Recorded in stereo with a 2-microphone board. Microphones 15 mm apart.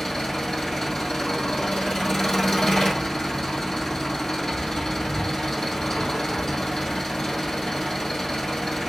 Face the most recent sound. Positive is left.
turn(degrees=50)  # may be behind; listen again after turning